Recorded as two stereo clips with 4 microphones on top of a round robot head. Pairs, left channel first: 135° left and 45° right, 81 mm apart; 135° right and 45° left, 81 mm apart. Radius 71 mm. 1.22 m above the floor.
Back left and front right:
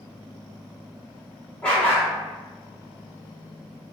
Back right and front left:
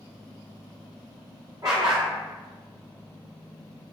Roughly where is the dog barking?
Ahead left.